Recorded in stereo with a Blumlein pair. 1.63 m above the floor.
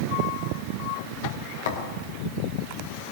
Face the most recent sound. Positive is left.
turn(degrees=55)